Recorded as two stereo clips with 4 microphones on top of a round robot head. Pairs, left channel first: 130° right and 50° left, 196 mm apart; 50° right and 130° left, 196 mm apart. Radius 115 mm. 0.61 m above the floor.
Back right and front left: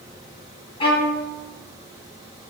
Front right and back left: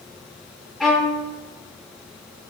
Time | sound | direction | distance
0.8 | a violin | 135° right | 1.0 m